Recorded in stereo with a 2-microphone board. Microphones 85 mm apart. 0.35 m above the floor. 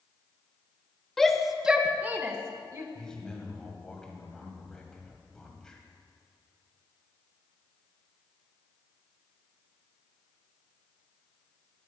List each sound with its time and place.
1.2 s a shout: 5° left (ahead or behind), 0.8 m; by 2.9 s 40° right (ahead or behind), 1.0 m
3.0 s a man speaking: 10° left (ahead or behind), 2 m